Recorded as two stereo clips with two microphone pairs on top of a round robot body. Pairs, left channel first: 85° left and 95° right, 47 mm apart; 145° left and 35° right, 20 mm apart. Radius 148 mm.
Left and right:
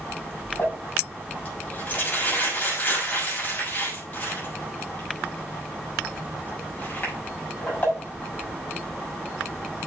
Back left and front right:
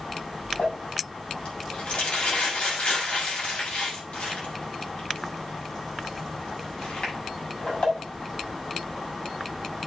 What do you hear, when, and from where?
0.6 s crumpling: 140° left, 6 m